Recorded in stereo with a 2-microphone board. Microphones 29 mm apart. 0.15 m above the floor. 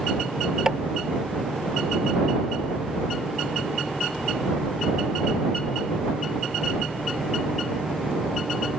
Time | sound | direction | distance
0.7 | tapping | 25° right (ahead or behind) | ?